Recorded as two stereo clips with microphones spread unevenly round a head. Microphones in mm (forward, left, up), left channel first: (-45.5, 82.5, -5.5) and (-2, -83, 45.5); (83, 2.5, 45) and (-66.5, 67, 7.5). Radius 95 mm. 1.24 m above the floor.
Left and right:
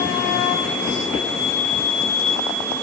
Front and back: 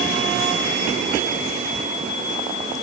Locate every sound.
Only background noise.